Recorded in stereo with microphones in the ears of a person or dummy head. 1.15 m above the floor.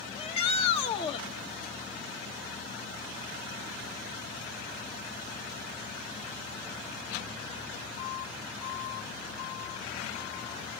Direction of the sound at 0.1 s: 35° left (ahead or behind).